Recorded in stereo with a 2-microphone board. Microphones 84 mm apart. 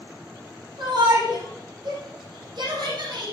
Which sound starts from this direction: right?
A shout, at 0.8 s.